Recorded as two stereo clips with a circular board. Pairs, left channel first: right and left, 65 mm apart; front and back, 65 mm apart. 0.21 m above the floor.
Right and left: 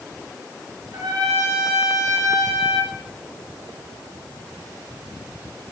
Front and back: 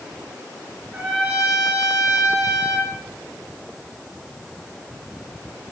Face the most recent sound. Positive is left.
turn(degrees=100)